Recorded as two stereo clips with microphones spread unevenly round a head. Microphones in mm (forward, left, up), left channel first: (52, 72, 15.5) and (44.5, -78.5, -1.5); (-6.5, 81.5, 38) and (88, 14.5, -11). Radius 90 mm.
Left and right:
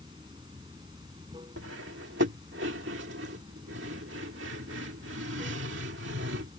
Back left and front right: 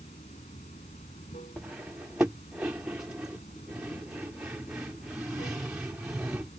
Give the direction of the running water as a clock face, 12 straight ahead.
5 o'clock.